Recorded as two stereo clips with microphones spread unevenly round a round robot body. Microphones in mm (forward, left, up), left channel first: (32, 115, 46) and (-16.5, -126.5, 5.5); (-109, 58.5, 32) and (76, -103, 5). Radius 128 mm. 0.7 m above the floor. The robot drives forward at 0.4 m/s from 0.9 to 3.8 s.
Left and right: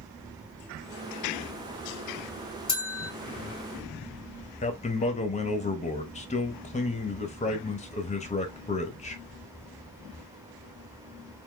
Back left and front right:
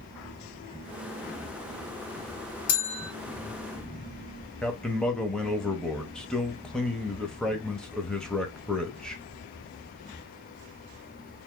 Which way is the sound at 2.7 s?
145° left.